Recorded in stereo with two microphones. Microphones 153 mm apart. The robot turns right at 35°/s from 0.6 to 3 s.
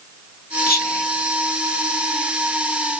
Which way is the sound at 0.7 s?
75° left (ahead or behind).